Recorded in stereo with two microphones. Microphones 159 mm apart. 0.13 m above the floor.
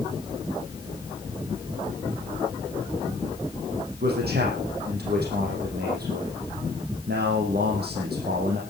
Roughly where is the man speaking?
Right.